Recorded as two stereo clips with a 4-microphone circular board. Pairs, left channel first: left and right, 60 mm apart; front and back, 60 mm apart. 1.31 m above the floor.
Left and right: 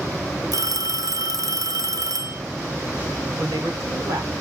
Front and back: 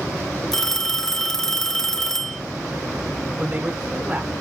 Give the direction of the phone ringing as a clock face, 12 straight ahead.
3 o'clock.